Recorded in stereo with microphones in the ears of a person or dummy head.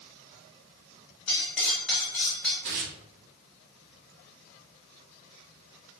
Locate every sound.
1.3 s cutlery clinking: 5° left (ahead or behind), 1.0 m
2.6 s tearing paper: 60° right (ahead or behind), 0.7 m